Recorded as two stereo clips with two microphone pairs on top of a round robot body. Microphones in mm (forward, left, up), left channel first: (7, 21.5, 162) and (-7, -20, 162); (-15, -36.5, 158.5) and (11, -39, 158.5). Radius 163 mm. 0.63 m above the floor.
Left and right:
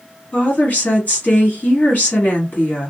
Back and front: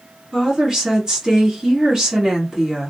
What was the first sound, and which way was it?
A woman speaking, 50° left.